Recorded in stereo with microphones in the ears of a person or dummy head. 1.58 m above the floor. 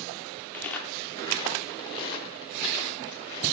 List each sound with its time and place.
0.5 s footsteps: 5° left (ahead or behind), 1.7 m; by 3.5 s 25° left (ahead or behind), 4 m